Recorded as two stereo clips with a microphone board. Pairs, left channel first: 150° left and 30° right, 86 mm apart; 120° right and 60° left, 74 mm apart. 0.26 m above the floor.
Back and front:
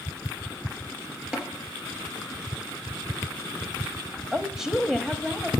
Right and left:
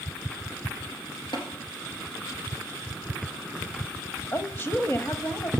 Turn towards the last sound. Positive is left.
turn(degrees=-110)